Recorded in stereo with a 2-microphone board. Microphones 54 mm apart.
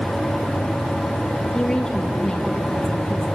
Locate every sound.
1.5 s a woman speaking: 10° left (ahead or behind), 5.5 m; by 3.4 s 15° left (ahead or behind), 6.5 m